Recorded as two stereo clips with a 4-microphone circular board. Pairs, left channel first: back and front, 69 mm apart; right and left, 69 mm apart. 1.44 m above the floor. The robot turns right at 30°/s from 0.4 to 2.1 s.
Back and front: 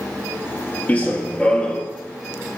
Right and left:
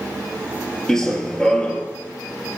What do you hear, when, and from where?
0.9 s running footsteps: 165° right, 1.5 m; by 1.8 s 135° right, 1.5 m